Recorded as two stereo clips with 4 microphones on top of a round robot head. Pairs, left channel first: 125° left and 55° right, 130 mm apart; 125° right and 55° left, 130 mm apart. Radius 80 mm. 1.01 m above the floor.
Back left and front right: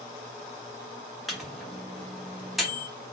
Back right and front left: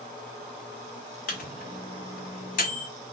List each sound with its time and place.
1.3 s a microwave: 145° right, 0.9 m